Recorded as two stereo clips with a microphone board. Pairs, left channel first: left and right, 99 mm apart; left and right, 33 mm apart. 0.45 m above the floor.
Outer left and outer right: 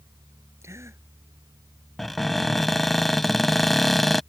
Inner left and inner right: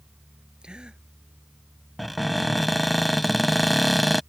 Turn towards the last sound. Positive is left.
turn(degrees=0)  # may be behind; listen again after turning